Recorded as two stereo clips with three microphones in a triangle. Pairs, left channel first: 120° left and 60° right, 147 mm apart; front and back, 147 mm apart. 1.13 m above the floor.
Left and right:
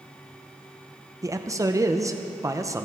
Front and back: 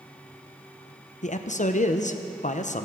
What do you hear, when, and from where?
1.2 s a man speaking: 5° left, 0.7 m